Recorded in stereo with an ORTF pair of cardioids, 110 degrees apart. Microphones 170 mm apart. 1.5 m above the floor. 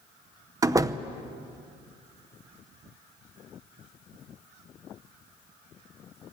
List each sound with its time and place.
0.6 s a door slam: 20° right, 0.8 m